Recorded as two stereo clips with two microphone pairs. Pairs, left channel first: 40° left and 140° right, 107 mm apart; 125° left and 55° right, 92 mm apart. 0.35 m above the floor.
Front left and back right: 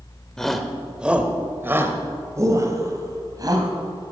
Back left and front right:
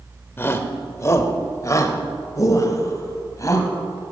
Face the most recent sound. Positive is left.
turn(degrees=175)